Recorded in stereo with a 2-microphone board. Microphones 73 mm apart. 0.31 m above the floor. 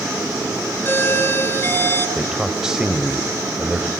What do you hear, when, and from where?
0.8 s a doorbell: 30° left (ahead or behind), 7 m
2.2 s a man speaking: 10° right (ahead or behind), 1.5 m